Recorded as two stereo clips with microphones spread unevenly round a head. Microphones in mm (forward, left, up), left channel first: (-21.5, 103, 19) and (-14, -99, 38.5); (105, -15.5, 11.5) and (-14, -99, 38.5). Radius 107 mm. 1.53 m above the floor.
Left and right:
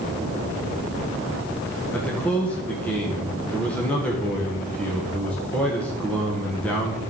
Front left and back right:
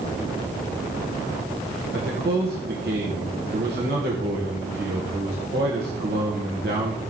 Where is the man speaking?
175° left, 1.8 m.